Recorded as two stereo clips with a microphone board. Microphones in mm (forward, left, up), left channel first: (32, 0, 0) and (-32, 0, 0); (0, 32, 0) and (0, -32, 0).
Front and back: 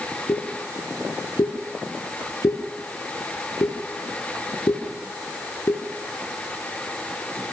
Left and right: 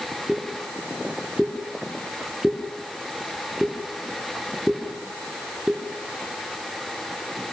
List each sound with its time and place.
0.3 s a pop: 10° right, 7.5 m